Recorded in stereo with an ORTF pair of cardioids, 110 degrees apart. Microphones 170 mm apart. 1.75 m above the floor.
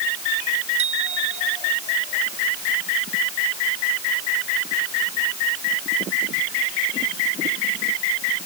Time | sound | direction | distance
0.8 | a bicycle bell | 40° right | ?